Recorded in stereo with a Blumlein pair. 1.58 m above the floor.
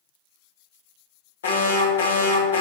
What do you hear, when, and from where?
1.4 s an alarm: 65° left, 1.3 m